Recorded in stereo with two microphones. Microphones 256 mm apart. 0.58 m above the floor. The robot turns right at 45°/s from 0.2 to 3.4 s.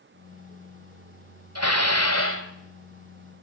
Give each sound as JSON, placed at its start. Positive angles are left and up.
{"t": 1.6, "sound": "dishes clattering", "azimuth_deg": 85, "distance_m": 2.0}